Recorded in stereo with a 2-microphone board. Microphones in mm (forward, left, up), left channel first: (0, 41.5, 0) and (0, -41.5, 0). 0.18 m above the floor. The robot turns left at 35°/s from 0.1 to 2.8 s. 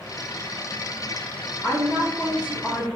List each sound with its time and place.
1.6 s a woman speaking: 25° left (ahead or behind), 1.1 m; by 2.9 s 10° left (ahead or behind), 1.1 m